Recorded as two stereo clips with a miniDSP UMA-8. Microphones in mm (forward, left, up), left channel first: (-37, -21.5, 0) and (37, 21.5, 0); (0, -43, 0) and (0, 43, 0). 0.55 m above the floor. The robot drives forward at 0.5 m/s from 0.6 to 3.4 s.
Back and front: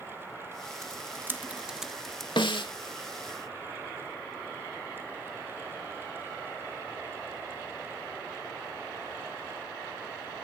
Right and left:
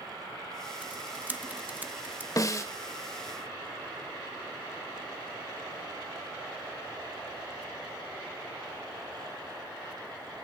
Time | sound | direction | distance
0.8 | typing on a keyboard | 30° left | 1.0 m
2.4 | a snare drum | 135° right | 1.2 m